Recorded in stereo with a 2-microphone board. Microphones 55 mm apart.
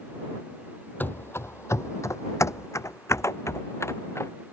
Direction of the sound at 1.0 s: 35° left (ahead or behind).